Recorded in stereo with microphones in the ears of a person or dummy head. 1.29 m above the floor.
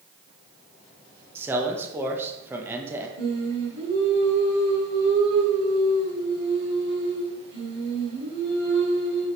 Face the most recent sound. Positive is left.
turn(degrees=-70)  # may be behind; listen again after turning